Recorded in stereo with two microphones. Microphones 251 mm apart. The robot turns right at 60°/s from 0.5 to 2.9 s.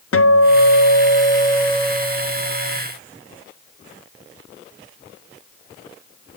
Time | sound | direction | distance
0.1 | a guitar | 100° left | 0.6 m